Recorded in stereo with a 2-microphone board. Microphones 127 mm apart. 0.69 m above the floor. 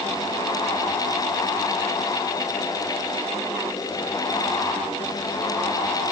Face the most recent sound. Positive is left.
No sound to turn to.